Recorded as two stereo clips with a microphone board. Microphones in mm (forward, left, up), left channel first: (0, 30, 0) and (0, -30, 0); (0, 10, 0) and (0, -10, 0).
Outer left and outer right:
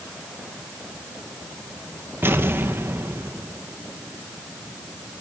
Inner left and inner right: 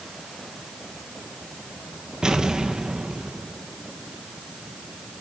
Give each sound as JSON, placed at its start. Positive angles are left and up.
{"t": 2.2, "sound": "an explosion", "side_deg": -40, "distance_m": 1.3}